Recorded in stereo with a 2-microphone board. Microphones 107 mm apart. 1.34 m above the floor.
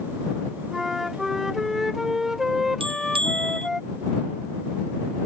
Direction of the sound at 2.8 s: 60° right (ahead or behind).